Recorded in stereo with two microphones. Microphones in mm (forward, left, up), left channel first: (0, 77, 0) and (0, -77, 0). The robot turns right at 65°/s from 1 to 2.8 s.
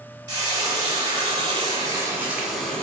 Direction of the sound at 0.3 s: 25° right (ahead or behind).